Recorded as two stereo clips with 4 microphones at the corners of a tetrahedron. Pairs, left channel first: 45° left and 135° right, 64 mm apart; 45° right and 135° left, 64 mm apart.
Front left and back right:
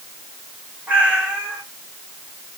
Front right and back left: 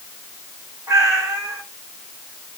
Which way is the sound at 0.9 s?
160° left.